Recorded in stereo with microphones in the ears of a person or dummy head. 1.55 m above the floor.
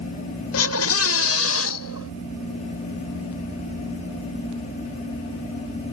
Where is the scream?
85° left; by 2.1 s 80° left.